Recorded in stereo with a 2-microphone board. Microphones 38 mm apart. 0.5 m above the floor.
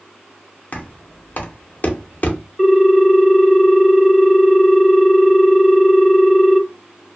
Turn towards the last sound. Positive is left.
turn(degrees=0)  # may be behind; listen again after turning